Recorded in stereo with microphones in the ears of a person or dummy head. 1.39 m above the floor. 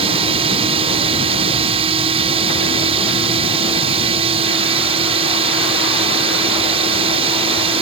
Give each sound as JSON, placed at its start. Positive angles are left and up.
{"t": 0.0, "sound": "a drone", "side_deg": -25}